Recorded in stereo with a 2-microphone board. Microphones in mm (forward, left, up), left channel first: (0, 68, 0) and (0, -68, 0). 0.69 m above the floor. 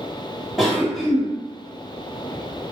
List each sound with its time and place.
0.6 s a cough: centre (ahead or behind), 1.1 m